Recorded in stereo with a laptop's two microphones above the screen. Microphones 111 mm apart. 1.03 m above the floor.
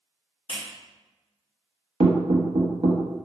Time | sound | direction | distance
0.5 | a clap | 55° left (ahead or behind) | 1.2 m
2.0 | knocking | 70° right (ahead or behind) | 0.6 m